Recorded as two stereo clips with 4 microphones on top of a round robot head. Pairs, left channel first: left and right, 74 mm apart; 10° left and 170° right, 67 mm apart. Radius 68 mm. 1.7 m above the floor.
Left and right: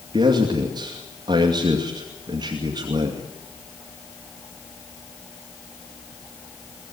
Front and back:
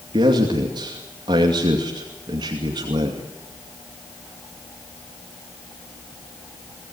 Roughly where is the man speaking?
Behind right.